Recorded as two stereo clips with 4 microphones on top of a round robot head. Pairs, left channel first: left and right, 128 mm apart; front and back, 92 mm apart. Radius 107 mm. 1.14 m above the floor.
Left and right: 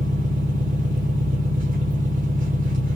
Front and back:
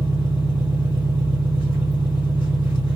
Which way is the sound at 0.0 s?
105° right.